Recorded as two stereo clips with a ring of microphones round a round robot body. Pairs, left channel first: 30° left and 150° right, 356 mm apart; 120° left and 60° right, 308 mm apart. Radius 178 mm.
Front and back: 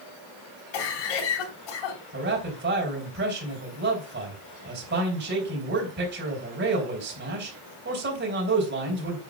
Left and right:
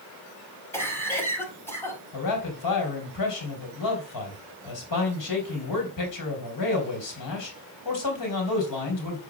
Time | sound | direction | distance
0.7 | a cough | 40° left | 4 m
2.1 | a man speaking | 150° left | 4 m